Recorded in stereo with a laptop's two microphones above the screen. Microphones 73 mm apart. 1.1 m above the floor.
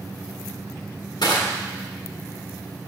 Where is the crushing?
75° left (ahead or behind), 1.4 m.